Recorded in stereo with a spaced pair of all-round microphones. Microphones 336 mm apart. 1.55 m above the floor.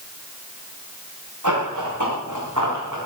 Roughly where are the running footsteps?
Right.